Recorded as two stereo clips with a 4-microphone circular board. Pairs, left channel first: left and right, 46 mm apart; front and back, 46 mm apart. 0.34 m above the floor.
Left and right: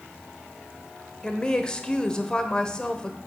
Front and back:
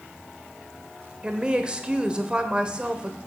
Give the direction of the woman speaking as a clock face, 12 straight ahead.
7 o'clock.